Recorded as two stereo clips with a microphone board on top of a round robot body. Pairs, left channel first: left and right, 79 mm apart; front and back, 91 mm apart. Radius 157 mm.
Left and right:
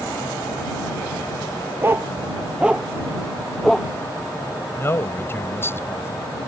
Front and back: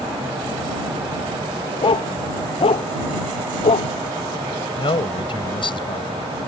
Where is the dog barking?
30° right; by 3.9 s 5° left.